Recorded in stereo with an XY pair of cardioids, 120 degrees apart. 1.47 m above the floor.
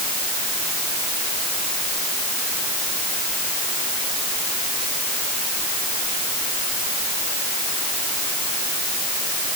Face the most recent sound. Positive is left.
No sound to turn to.